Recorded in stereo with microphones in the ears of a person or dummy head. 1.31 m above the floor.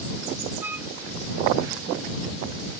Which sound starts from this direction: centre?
A flute, at 0.6 s.